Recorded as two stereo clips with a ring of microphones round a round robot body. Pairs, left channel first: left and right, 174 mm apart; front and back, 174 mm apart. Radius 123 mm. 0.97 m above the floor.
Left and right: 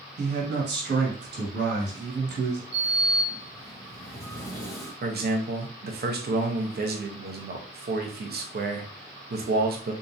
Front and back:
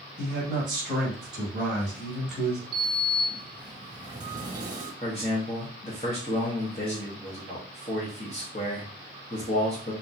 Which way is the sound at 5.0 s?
65° right.